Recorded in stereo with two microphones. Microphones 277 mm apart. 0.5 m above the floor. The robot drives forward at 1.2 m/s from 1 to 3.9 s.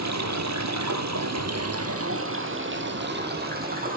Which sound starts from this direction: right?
Running water, at 0.0 s.